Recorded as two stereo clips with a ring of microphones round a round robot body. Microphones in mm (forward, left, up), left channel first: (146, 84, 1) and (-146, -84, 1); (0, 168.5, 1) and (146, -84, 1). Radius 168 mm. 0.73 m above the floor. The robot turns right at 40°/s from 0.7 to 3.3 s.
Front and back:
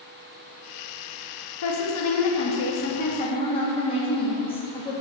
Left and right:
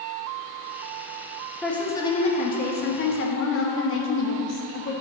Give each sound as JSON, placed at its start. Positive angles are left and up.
{"t": 1.6, "sound": "a woman speaking", "azimuth_deg": 30, "distance_m": 0.6}